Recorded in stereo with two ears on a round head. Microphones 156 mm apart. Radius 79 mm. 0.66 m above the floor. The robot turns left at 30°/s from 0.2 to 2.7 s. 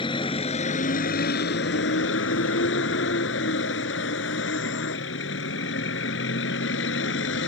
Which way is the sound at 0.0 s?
150° left.